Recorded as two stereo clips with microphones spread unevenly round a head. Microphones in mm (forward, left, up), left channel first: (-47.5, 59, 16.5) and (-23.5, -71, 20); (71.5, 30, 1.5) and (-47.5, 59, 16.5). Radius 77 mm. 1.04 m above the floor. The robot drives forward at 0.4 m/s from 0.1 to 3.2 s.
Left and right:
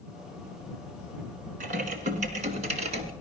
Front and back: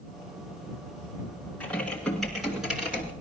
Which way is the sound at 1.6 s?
100° right.